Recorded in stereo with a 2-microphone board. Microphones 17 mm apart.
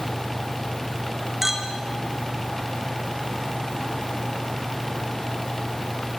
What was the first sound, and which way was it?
A clink, 10° right (ahead or behind).